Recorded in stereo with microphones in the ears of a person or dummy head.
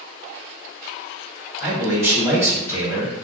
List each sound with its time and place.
1.6 s a man speaking: 20° right (ahead or behind), 1.4 m